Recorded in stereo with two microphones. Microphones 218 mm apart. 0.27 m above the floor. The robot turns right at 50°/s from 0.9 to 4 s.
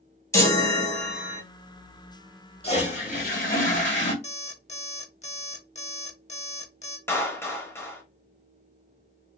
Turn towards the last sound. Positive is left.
turn(degrees=10)  # may be behind; listen again after turning